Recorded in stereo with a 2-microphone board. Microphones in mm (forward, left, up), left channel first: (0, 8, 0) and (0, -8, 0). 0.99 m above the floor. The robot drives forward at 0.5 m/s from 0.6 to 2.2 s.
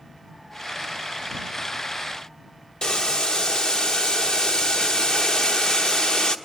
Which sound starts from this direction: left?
Boiling, at 2.8 s.